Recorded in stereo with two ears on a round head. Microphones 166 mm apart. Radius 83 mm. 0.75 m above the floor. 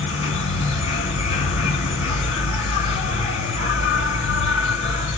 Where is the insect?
40° left (ahead or behind), 6 m.